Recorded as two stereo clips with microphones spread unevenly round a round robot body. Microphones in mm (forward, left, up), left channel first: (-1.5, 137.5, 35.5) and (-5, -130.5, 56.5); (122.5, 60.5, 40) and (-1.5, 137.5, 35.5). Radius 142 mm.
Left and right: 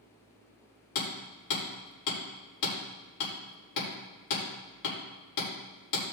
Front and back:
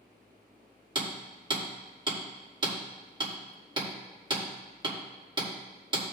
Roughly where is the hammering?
Left.